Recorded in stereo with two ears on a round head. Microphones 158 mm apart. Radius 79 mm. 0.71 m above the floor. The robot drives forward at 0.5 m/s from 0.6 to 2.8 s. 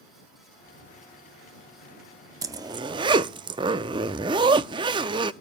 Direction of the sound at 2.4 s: 20° right (ahead or behind).